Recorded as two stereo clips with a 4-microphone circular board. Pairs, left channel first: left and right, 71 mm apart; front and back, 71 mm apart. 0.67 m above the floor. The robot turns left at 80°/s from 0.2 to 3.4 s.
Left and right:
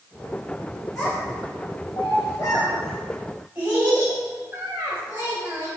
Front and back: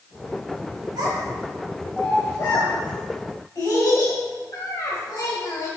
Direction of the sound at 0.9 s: 175° left.